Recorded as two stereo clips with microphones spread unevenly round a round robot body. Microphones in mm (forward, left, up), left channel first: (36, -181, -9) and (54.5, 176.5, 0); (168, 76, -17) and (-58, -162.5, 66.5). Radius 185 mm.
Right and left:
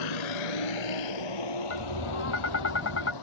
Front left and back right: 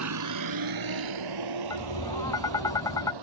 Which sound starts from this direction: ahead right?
Tapping, at 1.7 s.